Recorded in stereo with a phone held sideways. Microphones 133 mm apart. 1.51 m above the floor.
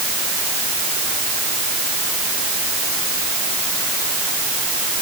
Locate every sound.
Only background noise.